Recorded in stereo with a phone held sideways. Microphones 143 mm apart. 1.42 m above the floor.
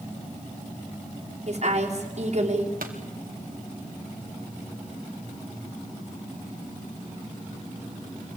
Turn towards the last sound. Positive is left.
turn(degrees=-75)  # may be behind; listen again after turning